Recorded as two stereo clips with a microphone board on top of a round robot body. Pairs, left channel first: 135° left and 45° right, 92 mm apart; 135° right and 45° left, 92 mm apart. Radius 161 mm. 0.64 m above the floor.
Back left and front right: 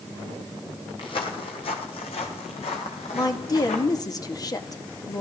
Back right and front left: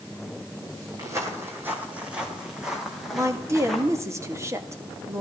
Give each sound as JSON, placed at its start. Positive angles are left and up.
{"t": 1.0, "sound": "footsteps", "azimuth_deg": 100, "distance_m": 1.4}
{"t": 3.1, "sound": "a woman speaking", "azimuth_deg": 95, "distance_m": 1.8}